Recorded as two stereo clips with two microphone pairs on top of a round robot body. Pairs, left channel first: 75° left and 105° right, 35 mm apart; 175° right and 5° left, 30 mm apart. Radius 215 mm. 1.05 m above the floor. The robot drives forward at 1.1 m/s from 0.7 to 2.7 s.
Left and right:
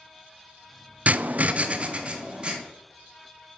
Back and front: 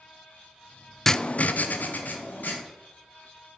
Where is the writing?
90° right, 0.5 m; by 2.6 s 170° right, 1.7 m.